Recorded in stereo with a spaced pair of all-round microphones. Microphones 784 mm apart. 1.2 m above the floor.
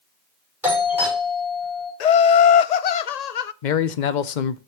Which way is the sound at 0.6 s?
Centre (ahead or behind).